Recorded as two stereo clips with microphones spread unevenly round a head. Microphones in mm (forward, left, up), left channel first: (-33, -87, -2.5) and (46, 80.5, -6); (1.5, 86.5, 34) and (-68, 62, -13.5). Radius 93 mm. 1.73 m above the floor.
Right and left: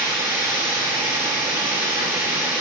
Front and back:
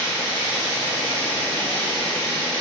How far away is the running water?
About 1.6 m.